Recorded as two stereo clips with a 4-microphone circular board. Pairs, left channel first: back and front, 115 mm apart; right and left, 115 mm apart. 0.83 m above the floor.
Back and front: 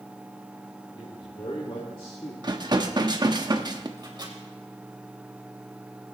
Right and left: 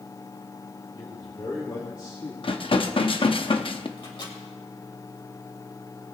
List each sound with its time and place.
0.9 s a man speaking: 145° right, 3 m; by 2.3 s 135° right, 1.9 m
2.4 s dishes clattering: 50° right, 0.8 m
4.0 s a microwave: 50° right, 3 m